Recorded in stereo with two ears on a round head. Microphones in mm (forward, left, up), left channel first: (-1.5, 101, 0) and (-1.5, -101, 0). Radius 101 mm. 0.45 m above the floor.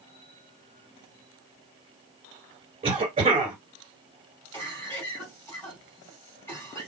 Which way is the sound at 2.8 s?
25° right (ahead or behind).